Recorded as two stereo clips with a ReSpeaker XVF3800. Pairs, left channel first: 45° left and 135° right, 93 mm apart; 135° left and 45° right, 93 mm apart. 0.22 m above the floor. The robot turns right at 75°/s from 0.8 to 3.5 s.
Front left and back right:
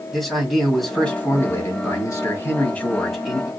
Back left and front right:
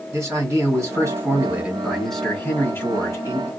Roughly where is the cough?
No cough in this recording.